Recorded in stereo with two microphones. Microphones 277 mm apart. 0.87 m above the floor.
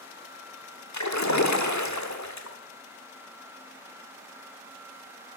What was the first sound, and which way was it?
A splash, 80° left.